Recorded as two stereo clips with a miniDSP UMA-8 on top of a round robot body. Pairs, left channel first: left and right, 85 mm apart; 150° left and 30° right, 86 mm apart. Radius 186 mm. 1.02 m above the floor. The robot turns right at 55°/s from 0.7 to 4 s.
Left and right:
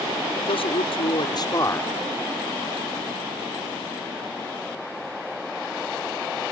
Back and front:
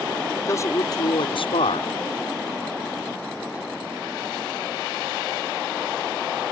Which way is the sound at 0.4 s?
95° left.